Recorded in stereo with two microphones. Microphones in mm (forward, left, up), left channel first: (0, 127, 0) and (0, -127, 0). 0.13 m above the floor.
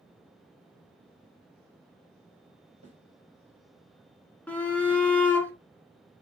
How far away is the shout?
About 1.2 m.